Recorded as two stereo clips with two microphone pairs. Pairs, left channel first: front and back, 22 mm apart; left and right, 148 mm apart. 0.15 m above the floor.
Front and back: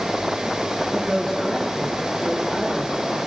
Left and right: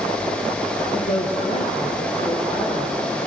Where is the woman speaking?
80° left, 3.5 m; by 3.2 s 35° left, 4.5 m.